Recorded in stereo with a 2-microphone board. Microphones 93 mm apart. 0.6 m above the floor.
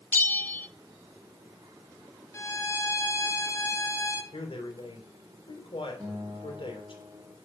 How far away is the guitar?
About 6 m.